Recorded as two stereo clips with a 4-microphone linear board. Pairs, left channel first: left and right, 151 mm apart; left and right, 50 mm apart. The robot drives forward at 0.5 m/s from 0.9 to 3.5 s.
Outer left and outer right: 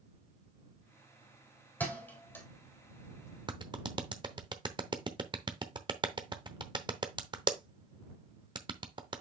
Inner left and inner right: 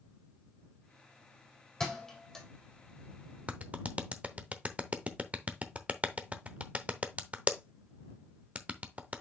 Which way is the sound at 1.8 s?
10° left (ahead or behind).